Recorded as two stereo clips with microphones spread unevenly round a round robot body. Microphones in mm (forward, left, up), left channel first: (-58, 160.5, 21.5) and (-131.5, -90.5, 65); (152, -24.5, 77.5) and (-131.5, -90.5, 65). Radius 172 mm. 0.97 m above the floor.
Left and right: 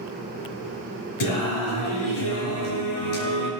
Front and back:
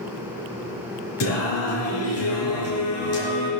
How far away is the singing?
About 4 m.